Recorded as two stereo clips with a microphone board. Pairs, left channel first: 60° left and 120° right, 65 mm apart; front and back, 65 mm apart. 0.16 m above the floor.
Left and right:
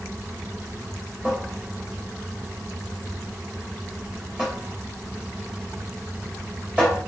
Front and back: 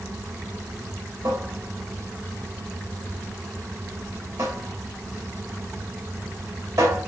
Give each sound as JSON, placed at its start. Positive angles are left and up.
{"t": 1.2, "sound": "a cupboard door", "azimuth_deg": 165, "distance_m": 3.5}